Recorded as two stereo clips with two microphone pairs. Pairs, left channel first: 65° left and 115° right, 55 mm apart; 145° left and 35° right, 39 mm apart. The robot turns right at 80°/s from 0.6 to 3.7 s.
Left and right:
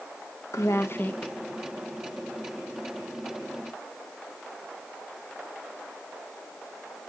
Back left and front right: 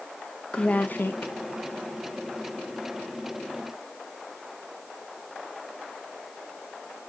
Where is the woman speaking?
80° left, 0.6 m; by 1.3 s 140° left, 0.6 m.